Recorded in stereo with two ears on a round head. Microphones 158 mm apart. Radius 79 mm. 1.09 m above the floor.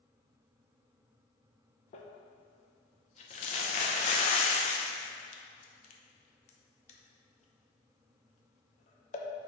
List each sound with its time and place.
1.9 s crumpling: 40° left (ahead or behind), 0.8 m